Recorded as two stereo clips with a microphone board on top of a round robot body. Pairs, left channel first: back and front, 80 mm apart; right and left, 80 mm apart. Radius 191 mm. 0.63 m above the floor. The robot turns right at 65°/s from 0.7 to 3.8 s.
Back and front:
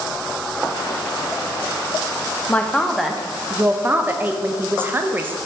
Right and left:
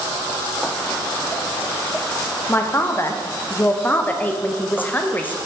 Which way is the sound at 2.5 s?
125° right.